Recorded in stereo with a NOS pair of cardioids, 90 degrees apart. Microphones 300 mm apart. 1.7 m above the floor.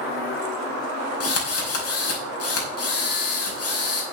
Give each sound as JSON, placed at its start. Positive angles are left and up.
{"t": 1.2, "sound": "a drill", "azimuth_deg": 55, "distance_m": 5.5}